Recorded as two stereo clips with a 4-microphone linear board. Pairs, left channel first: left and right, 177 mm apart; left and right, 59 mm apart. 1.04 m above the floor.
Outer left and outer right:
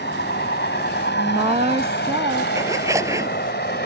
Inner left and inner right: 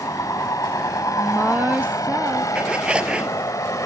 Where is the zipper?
15° right (ahead or behind).